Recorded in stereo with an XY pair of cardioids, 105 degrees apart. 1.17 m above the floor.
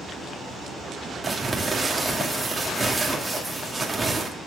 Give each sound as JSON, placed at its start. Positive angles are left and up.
{"t": 1.2, "sound": "crumpling", "azimuth_deg": -15, "distance_m": 2.5}